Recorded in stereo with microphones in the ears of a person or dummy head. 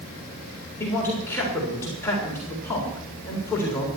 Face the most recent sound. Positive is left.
turn(degrees=10)  # may be behind; listen again after turning